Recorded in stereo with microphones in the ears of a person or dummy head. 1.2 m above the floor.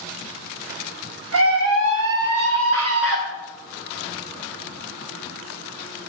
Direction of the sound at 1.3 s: 70° right (ahead or behind).